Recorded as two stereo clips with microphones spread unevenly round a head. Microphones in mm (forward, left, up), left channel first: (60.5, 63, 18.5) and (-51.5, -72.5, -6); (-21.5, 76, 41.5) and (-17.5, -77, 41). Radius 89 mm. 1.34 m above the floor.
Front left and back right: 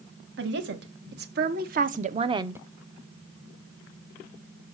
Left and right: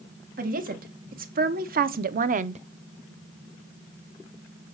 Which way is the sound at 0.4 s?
115° right.